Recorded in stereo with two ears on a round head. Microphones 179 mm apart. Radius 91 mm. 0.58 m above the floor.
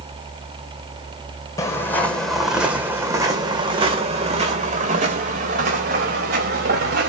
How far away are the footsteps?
About 2 m.